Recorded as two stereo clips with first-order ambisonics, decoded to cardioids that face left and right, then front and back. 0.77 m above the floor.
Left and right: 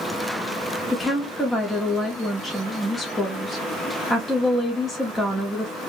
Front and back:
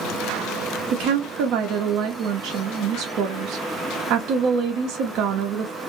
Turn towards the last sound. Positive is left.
turn(degrees=165)